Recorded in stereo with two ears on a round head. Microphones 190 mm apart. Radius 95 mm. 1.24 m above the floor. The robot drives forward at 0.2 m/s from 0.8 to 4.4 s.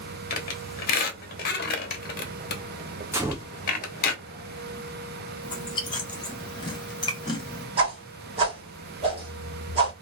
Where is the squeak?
45° left (ahead or behind), 1.0 m; by 4.1 s 50° left (ahead or behind), 0.9 m.